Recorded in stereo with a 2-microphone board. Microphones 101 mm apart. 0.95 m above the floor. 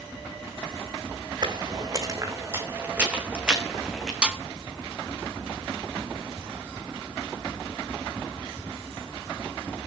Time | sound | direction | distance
1.4 | footsteps | 45° right (ahead or behind) | 2.5 m
4.2 | a snare drum | 10° right (ahead or behind) | 1.8 m